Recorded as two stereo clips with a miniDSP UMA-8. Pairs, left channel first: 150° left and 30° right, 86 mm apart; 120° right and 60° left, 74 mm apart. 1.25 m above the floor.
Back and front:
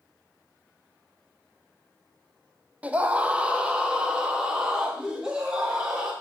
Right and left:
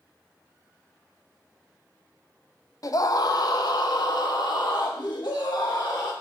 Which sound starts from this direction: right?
A scream, at 2.8 s.